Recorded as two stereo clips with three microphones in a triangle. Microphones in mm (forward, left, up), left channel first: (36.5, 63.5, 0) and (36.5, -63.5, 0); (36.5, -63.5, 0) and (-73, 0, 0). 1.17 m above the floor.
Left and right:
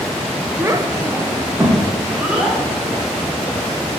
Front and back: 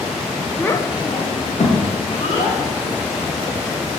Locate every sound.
0.6 s a child speaking: 90° right, 0.5 m; by 4.0 s 5° right, 3 m